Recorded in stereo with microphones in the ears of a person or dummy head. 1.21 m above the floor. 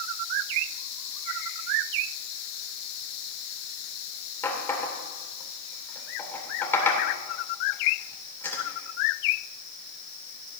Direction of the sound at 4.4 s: 15° left (ahead or behind).